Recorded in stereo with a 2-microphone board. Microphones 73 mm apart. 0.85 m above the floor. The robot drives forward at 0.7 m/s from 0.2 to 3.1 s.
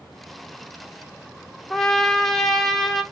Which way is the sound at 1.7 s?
5° left (ahead or behind).